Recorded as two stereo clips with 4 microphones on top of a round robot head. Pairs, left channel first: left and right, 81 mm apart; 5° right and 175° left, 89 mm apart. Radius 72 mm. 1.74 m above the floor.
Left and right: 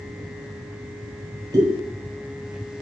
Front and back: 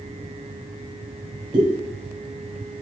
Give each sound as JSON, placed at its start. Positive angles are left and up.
{"t": 1.5, "sound": "a pop", "azimuth_deg": -135, "distance_m": 0.5}